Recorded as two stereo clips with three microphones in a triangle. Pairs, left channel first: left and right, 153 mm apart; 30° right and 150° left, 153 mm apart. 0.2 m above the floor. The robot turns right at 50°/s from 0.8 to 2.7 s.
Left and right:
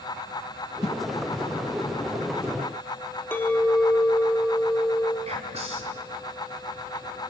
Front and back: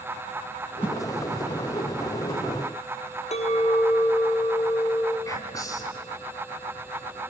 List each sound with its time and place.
0.8 s a whoosh: 75° left, 1.0 m; by 0.9 s 85° left, 1.0 m
3.3 s a clink: 15° left, 3 m
5.2 s whispering: 90° right, 2 m